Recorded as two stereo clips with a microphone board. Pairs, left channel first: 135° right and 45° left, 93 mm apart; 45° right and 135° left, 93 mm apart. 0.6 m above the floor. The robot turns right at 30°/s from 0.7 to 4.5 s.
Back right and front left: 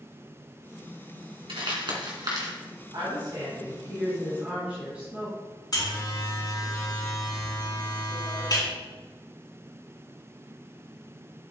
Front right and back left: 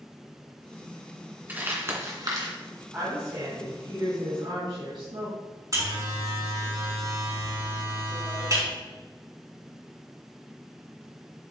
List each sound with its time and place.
1.5 s crumpling: 65° left, 2.5 m; by 2.5 s 95° left, 2.5 m
2.9 s a woman speaking: 75° left, 4 m; by 5.3 s 120° left, 4 m
5.7 s a buzzer: straight behind, 4.5 m